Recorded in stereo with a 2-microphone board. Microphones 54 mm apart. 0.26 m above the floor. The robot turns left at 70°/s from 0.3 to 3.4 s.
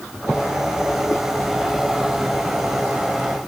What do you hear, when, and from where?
Only background noise.